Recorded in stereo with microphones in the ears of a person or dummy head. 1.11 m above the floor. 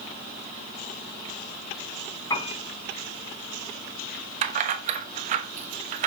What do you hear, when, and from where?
2.3 s a piano: 25° left (ahead or behind), 2 m
4.4 s keys jangling: 45° right (ahead or behind), 0.9 m